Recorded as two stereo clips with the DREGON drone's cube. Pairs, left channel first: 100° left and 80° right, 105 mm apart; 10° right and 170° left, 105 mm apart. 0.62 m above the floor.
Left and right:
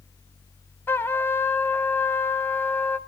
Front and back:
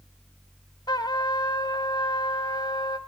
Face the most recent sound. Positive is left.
turn(degrees=30)